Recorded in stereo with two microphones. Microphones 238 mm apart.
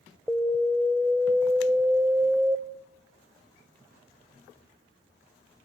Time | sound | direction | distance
0.3 | an alarm | centre (ahead or behind) | 0.8 m